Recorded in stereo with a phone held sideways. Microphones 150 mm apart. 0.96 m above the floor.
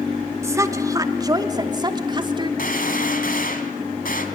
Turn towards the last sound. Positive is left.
turn(degrees=70)  # may be behind; listen again after turning